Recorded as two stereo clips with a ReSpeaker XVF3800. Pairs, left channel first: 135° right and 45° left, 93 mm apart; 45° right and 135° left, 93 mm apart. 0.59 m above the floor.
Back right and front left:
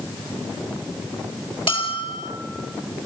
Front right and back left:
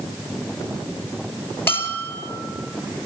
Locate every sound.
1.7 s a bell: 110° right, 3.5 m